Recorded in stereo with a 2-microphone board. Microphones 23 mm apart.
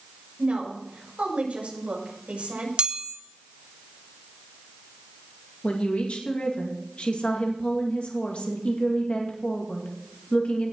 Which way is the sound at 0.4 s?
65° right (ahead or behind).